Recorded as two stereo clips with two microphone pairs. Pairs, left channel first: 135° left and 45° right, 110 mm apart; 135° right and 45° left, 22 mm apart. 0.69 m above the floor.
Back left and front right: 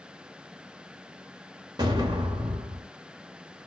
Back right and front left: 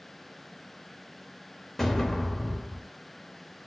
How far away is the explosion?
About 1.0 m.